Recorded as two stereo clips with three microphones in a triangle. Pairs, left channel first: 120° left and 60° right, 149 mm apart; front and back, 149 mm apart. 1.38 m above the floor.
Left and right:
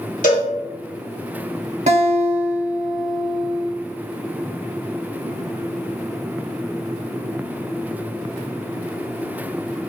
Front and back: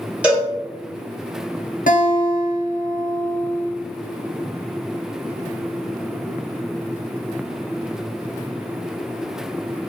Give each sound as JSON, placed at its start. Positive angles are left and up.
{"t": 0.2, "sound": "a cowbell", "azimuth_deg": 100, "distance_m": 1.5}
{"t": 1.9, "sound": "a guitar", "azimuth_deg": -25, "distance_m": 0.5}